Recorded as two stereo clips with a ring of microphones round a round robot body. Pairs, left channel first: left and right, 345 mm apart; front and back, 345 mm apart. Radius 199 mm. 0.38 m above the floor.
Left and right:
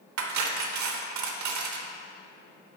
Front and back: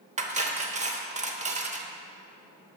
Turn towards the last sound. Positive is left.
turn(degrees=-115)